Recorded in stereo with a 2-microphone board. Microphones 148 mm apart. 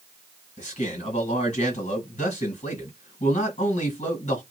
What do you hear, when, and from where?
0.6 s a man speaking: 50° left (ahead or behind), 1.9 m